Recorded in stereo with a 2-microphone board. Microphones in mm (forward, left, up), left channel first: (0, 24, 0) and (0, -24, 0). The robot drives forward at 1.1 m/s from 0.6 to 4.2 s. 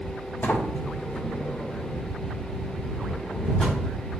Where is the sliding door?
50° left (ahead or behind), 1.6 m; by 3.8 s 15° left (ahead or behind), 4.5 m.